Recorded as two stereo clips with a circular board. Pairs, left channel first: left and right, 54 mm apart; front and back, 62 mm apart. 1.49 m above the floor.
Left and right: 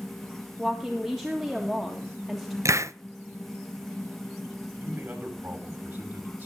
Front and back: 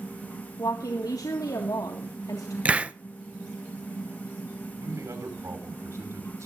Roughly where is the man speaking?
Behind right.